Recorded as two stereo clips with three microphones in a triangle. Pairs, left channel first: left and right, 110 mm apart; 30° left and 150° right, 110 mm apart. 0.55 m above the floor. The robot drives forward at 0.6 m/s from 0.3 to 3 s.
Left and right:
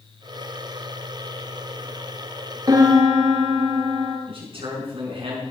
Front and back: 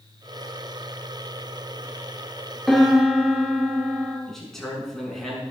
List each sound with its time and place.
2.7 s a piano: 55° right, 1.6 m; by 4.2 s 65° right, 1.6 m
4.3 s a man speaking: 55° right, 5 m